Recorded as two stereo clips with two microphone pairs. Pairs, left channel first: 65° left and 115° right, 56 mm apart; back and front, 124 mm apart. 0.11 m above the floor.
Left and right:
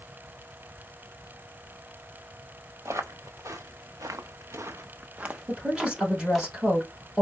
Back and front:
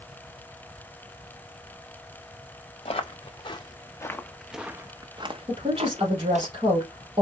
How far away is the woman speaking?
About 3.5 m.